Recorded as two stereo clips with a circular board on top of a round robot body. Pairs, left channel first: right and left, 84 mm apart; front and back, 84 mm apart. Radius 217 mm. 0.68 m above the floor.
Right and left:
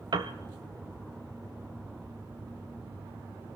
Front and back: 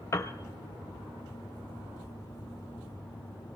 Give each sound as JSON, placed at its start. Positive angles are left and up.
{"t": 0.1, "sound": "a piano", "azimuth_deg": 55, "distance_m": 0.7}